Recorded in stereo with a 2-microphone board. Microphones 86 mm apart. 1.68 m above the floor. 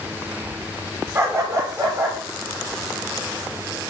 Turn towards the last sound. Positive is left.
turn(degrees=-35)  # may be behind; listen again after turning